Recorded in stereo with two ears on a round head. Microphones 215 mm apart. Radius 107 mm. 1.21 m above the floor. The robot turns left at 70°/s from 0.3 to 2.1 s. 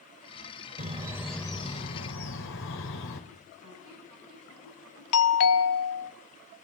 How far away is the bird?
About 3.5 m.